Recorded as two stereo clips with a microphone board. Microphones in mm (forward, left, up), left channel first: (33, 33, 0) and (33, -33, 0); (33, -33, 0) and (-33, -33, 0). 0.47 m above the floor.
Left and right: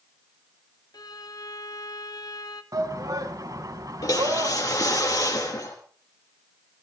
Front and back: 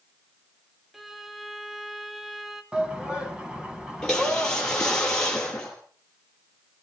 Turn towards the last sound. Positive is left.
turn(degrees=80)